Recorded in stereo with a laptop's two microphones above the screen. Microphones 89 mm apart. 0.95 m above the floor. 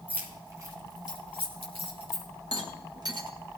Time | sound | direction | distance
0.1 | keys jangling | 20° right (ahead or behind) | 1.7 m
2.5 | a rattle | 50° right (ahead or behind) | 1.3 m